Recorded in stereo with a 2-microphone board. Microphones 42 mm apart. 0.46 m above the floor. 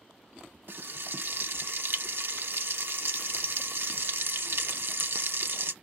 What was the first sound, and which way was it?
Frying, 60° right (ahead or behind).